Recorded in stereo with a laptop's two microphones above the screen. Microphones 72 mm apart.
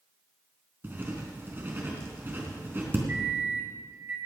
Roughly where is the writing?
Right.